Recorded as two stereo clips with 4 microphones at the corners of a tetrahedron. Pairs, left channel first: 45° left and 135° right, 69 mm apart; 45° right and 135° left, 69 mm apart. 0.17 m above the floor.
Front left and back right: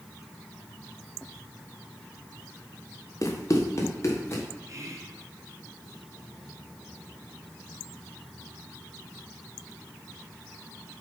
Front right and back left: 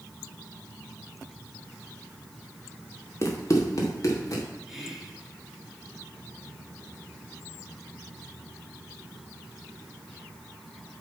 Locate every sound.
3.2 s running footsteps: straight ahead, 2 m; by 4.4 s 5° right, 3 m
4.7 s whispering: 140° right, 1.8 m